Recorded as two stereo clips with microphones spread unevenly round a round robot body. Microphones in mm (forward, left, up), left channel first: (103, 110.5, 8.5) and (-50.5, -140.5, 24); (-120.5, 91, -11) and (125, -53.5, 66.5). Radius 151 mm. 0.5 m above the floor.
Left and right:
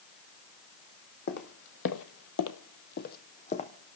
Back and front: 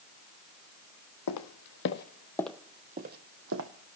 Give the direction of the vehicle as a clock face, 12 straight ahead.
I don't hear a vehicle.